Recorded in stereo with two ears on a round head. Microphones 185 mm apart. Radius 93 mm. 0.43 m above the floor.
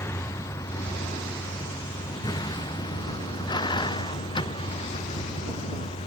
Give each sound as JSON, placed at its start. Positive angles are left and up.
{"t": 0.0, "sound": "a vehicle", "side_deg": 15}